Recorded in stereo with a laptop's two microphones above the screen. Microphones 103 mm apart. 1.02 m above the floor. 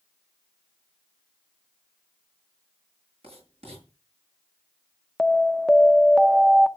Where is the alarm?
Centre (ahead or behind), 0.6 m.